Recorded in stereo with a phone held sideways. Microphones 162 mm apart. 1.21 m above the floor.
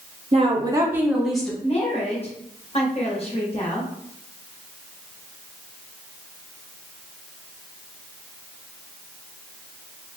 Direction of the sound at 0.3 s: 40° right (ahead or behind).